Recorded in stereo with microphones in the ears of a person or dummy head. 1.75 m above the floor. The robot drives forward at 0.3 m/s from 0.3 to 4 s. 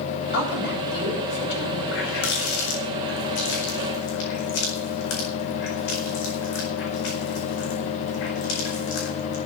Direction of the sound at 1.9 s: 65° left (ahead or behind).